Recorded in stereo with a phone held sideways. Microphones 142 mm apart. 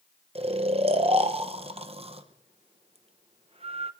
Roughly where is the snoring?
Right.